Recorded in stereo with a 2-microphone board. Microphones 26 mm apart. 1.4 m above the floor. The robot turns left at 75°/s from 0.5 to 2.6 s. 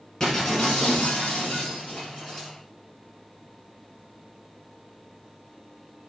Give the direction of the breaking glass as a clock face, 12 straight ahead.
7 o'clock.